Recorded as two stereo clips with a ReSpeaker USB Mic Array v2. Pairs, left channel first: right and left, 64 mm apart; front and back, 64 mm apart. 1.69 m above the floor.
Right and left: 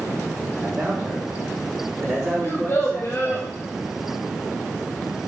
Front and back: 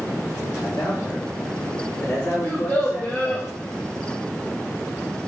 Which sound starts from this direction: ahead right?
A child speaking, at 2.4 s.